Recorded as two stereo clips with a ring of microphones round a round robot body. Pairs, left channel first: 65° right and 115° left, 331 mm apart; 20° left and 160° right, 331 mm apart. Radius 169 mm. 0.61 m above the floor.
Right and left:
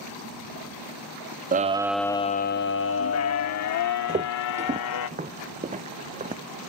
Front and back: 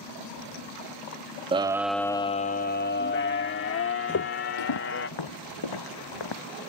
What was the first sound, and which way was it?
A scream, 145° left.